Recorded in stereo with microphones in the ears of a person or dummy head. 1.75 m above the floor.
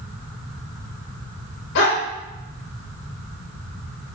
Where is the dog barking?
65° left (ahead or behind), 3.5 m.